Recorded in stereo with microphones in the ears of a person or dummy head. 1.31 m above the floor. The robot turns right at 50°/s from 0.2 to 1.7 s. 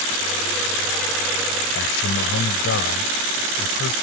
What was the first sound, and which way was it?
A man speaking, 70° left (ahead or behind).